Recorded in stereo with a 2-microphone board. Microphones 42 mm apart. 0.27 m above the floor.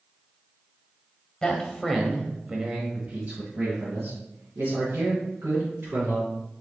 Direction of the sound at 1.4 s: 25° left (ahead or behind).